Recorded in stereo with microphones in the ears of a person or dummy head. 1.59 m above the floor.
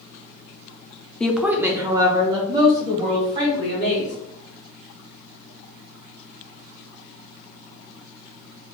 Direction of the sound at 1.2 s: 5° left (ahead or behind).